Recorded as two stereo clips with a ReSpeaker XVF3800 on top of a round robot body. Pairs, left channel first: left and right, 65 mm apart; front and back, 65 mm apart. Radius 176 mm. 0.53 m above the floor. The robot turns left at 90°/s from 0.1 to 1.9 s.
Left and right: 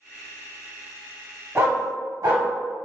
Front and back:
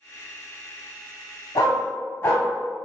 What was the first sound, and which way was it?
A dog barking, 30° right.